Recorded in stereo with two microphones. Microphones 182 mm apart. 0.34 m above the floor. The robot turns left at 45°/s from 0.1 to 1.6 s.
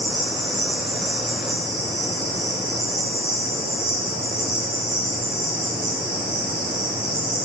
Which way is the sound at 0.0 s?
60° right.